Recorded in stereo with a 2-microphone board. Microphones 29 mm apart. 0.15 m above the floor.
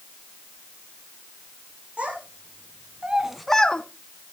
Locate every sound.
2.0 s a child speaking: 50° right (ahead or behind), 2.5 m; by 3.8 s 40° left (ahead or behind), 0.9 m